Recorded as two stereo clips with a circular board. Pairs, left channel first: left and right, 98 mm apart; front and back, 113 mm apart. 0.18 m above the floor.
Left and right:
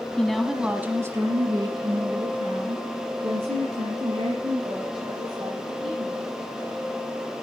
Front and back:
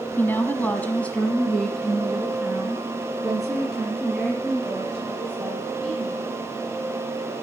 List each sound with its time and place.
0.2 s a woman speaking: 25° left, 1.3 m; by 6.3 s 95° right, 5.5 m